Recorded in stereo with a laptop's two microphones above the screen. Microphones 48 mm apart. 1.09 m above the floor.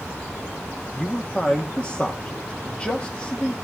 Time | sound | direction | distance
0.9 | a man speaking | 25° left (ahead or behind) | 1.7 m